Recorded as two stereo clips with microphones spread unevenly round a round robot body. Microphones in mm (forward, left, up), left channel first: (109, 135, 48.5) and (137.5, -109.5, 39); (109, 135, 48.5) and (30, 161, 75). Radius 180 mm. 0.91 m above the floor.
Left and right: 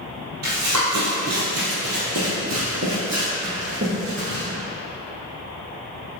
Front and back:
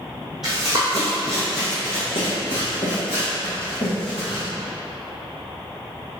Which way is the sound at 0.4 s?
120° right.